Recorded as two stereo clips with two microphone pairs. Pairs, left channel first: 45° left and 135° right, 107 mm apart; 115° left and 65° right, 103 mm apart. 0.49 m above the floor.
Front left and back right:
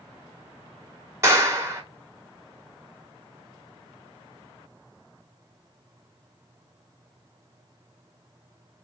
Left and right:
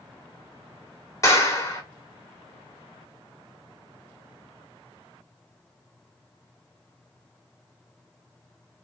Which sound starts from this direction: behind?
A clap, at 1.2 s.